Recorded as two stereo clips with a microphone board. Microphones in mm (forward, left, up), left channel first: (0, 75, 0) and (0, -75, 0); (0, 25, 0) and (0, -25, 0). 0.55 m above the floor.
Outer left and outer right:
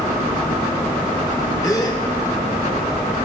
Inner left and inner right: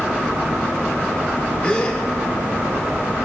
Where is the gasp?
25° left (ahead or behind), 1.0 m.